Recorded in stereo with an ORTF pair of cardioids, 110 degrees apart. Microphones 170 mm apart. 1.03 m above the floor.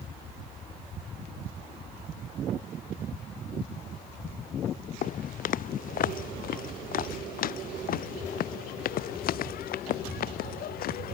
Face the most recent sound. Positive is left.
turn(degrees=65)